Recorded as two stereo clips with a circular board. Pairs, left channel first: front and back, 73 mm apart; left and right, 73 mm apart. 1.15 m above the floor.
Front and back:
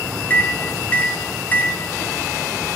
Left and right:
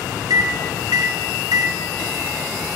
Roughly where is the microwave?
Ahead right.